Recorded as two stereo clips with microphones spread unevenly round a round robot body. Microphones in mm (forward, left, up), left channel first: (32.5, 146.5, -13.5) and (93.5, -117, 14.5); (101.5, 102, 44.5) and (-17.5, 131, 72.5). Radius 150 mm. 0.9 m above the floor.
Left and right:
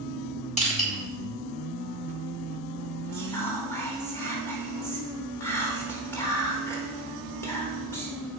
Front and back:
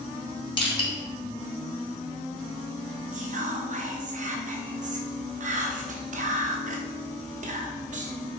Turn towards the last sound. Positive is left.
turn(degrees=180)